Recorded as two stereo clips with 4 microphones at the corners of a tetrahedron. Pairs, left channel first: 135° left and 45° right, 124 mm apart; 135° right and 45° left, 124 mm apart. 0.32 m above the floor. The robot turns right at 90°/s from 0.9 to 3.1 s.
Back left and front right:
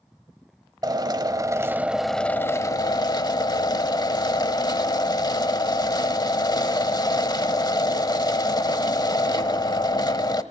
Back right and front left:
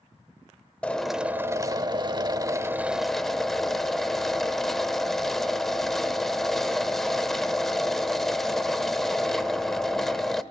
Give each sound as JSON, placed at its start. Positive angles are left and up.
{"t": 0.8, "sound": "a drill", "azimuth_deg": -60, "distance_m": 1.1}